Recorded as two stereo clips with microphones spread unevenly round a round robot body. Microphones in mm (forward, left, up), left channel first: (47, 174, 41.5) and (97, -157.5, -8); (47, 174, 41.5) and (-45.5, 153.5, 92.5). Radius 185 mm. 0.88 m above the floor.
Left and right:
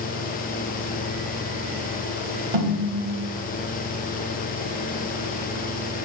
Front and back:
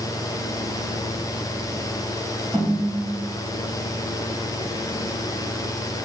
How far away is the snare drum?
About 1.2 m.